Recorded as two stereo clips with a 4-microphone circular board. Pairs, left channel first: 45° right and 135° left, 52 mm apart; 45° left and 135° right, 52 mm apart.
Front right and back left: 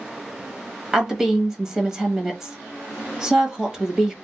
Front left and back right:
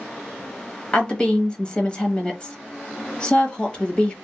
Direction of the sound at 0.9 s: 75° left.